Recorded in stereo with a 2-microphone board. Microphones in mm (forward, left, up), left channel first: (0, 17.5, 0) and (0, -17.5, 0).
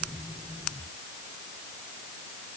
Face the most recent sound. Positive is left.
No sound to turn to.